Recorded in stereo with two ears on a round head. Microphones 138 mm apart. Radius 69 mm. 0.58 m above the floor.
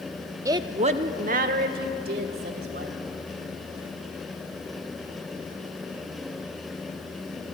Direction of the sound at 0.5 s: 20° right (ahead or behind).